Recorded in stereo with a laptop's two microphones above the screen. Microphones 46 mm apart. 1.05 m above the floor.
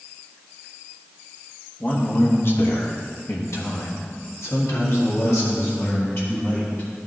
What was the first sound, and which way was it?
A man speaking, 35° left (ahead or behind).